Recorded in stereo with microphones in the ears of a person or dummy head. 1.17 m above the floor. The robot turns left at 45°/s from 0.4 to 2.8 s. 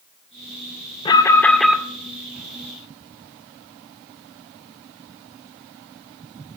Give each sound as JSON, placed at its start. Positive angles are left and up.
{"t": 1.1, "sound": "an alarm", "azimuth_deg": 25, "distance_m": 1.9}